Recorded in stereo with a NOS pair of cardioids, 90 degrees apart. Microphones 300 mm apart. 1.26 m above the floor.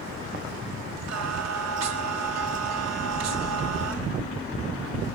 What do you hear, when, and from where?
1.1 s singing: 55° right, 1.2 m